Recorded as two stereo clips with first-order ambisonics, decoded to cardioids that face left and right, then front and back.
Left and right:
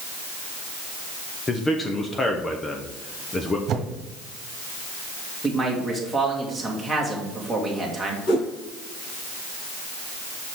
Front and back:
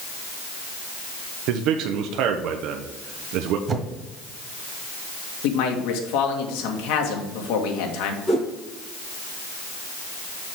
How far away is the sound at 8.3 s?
About 3.5 m.